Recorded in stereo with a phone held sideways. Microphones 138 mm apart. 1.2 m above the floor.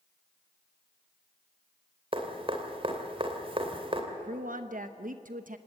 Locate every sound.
2.1 s dripping: 40° right (ahead or behind), 2.5 m
4.1 s a woman speaking: 75° right (ahead or behind), 0.9 m